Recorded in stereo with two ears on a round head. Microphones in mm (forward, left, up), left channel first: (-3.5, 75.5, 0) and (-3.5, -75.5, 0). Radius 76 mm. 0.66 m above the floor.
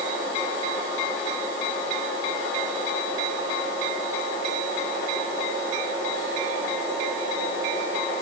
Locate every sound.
Only background noise.